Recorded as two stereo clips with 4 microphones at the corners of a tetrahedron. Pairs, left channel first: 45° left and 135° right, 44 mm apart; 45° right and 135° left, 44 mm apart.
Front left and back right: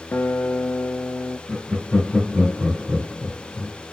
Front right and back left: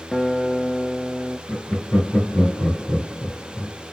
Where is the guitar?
45° left, 0.5 m.